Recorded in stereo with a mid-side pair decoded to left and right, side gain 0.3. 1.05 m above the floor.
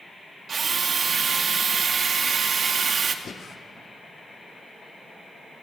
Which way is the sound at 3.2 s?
65° left.